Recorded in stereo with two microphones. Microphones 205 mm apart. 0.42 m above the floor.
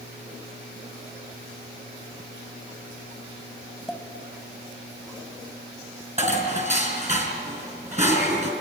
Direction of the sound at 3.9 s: Centre (ahead or behind).